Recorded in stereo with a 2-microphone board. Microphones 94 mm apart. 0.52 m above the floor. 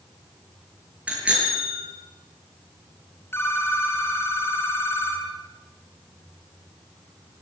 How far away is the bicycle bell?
About 7 m.